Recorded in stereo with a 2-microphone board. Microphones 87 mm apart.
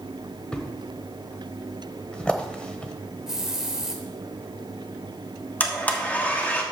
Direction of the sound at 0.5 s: 10° left (ahead or behind).